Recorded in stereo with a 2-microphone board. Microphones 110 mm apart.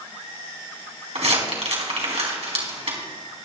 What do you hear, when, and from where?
1.1 s crumpling: 75° right (ahead or behind), 3 m